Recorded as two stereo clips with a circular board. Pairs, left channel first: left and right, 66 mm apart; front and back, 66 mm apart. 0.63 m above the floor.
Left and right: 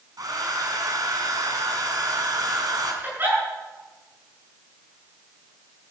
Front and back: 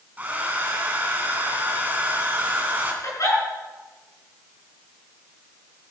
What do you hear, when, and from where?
0.2 s a hair dryer: 115° right, 3 m
3.0 s a giggle: 35° right, 9 m